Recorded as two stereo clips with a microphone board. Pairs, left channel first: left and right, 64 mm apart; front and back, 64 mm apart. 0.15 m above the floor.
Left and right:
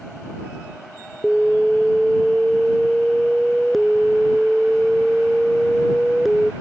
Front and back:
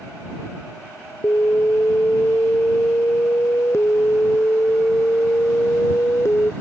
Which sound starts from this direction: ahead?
An alarm, at 1.2 s.